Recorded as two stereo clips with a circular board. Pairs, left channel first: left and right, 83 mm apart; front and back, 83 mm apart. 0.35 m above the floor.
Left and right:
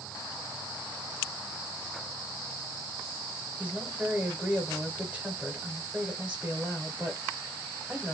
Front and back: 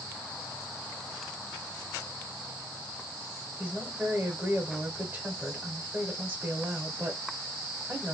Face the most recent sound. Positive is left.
turn(degrees=-140)